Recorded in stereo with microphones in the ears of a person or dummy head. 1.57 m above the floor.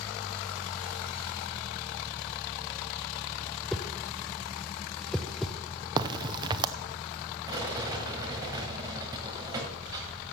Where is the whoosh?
5° left (ahead or behind), 0.6 m.